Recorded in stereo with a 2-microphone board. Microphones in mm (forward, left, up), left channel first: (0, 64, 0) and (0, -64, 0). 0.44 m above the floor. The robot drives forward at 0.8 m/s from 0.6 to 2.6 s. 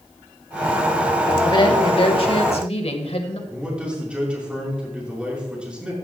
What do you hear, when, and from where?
1.4 s a woman speaking: 40° left (ahead or behind), 2.5 m; by 3.4 s 50° left (ahead or behind), 2.0 m
3.5 s a man speaking: 10° right (ahead or behind), 6 m